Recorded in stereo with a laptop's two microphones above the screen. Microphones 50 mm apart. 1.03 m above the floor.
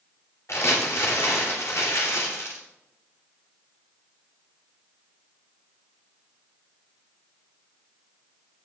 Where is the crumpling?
70° left (ahead or behind), 3 m.